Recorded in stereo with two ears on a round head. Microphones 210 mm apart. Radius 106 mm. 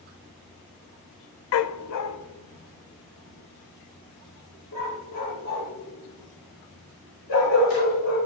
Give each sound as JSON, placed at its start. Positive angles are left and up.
{"t": 1.5, "sound": "a dog barking", "side_deg": 65, "distance_m": 0.6}